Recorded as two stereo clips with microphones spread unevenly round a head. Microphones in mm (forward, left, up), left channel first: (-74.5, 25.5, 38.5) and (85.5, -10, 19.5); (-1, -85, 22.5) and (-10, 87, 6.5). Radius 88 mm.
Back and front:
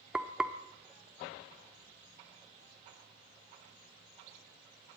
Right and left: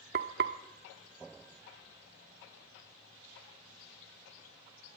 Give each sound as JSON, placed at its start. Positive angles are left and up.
{"t": 0.1, "sound": "frying", "azimuth_deg": 80, "distance_m": 1.2}